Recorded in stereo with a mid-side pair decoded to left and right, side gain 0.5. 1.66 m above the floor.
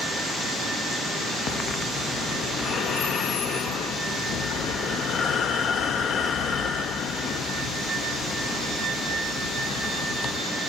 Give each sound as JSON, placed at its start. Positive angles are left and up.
{"t": 1.5, "sound": "breathing", "azimuth_deg": 60, "distance_m": 0.6}